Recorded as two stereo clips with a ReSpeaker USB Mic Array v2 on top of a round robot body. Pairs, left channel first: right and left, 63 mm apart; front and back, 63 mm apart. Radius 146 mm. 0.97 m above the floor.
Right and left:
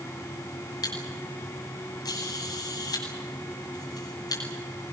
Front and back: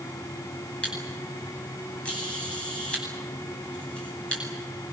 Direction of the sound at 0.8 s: 75° right.